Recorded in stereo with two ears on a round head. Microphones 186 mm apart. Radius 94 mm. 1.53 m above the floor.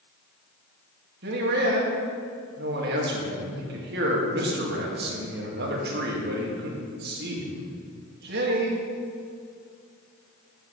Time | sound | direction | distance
1.2 | a man speaking | 50° right (ahead or behind) | 1.9 m